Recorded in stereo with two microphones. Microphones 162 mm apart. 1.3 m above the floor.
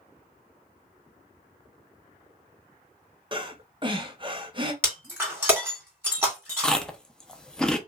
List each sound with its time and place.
3.3 s breathing: 30° right (ahead or behind), 0.9 m
4.8 s breaking glass: 10° right (ahead or behind), 2.5 m
6.6 s chewing: 5° left (ahead or behind), 0.6 m